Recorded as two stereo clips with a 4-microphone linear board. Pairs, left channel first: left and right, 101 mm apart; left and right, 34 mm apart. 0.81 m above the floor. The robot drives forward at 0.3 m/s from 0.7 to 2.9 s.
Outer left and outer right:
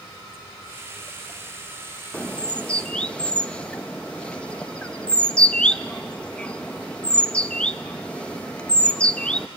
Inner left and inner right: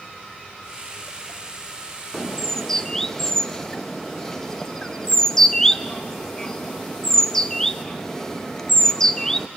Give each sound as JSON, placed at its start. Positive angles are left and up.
{"t": 2.1, "sound": "a bird", "side_deg": 15, "distance_m": 0.6}